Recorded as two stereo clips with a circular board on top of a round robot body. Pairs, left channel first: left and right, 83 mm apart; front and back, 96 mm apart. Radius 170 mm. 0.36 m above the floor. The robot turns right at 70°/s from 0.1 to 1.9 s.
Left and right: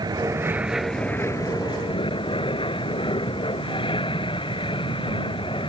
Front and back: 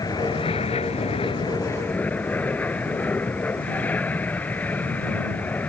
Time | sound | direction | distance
0.0 | an aircraft | 50° right | ?